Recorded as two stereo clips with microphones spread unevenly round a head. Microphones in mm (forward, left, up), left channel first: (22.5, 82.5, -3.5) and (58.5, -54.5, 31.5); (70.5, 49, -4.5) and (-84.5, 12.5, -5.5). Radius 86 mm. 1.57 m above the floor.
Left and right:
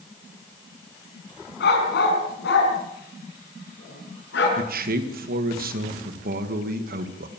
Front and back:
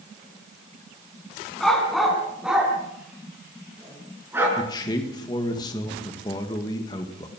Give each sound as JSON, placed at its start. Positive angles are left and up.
{"t": 1.6, "sound": "a dog barking", "azimuth_deg": 100, "distance_m": 5.5}
{"t": 4.6, "sound": "a man speaking", "azimuth_deg": -55, "distance_m": 2.0}